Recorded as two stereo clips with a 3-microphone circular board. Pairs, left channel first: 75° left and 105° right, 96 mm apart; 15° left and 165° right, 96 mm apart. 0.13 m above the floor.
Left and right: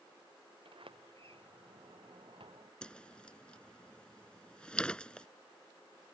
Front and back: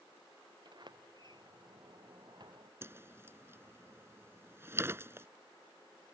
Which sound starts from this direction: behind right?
A sliding door, at 0.7 s.